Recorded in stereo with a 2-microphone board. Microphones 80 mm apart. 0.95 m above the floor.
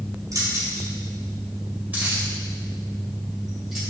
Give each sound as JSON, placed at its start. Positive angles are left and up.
{"t": 0.3, "sound": "keys jangling", "side_deg": -45, "distance_m": 2.0}